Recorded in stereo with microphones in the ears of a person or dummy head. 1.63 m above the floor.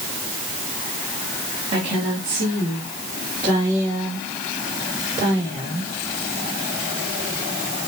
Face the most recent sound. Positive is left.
turn(degrees=-20)  # may be behind; listen again after turning